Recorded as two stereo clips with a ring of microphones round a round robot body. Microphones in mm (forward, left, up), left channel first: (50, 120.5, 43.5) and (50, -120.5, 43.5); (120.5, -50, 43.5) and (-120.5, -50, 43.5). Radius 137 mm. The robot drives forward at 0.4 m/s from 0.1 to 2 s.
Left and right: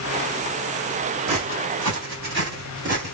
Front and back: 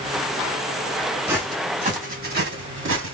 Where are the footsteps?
100° right, 1.9 m; by 3.1 s 155° right, 1.7 m.